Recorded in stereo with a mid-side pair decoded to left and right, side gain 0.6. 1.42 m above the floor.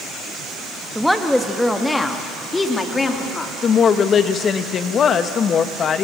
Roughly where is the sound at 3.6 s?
Ahead left.